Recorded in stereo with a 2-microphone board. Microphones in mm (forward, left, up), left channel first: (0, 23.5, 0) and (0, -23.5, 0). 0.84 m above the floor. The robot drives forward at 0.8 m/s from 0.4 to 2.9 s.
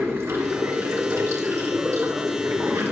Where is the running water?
80° right, 4.5 m; by 2.9 s 75° right (ahead or behind), 4.5 m.